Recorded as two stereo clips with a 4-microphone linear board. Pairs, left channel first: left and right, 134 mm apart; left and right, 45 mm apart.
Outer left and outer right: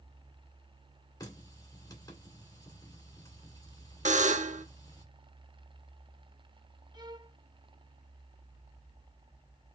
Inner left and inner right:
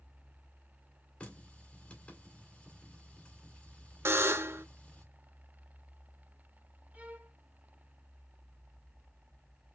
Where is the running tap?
25° left (ahead or behind), 2 m.